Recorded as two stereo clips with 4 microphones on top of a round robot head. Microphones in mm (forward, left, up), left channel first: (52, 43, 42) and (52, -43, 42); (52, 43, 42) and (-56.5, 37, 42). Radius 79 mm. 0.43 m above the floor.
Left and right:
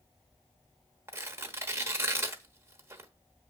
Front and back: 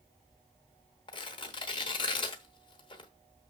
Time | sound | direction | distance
1.1 | tearing paper | 35° right | 1.2 m